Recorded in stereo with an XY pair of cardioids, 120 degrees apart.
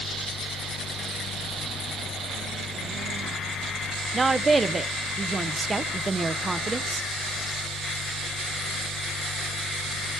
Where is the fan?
70° left, 1.7 m.